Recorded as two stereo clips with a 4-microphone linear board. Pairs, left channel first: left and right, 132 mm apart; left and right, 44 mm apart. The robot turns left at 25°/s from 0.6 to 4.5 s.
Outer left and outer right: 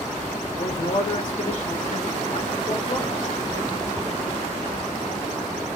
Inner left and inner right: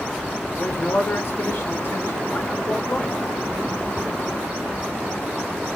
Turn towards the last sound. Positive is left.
turn(degrees=5)